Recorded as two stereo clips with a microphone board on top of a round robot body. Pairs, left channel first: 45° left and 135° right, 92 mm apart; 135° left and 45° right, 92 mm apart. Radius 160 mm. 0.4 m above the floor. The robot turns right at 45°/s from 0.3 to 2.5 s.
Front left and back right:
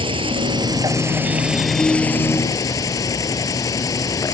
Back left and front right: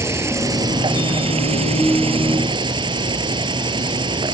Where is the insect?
105° right; by 4.3 s 10° right.